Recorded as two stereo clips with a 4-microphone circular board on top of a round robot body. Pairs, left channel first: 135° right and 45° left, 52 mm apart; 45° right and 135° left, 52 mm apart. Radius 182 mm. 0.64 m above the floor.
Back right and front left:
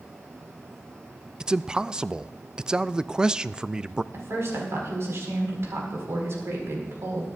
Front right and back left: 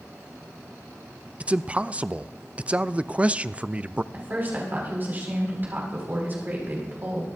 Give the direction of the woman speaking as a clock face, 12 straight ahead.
9 o'clock.